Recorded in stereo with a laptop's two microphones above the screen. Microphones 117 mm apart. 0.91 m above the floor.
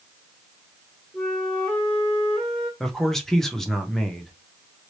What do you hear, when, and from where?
1.1 s a flute: 5° left (ahead or behind), 1.3 m
2.8 s a man speaking: 5° left (ahead or behind), 0.7 m